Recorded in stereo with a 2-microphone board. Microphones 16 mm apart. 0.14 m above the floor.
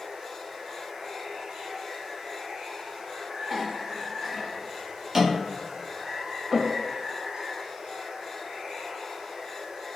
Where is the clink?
20° right (ahead or behind), 1.2 m.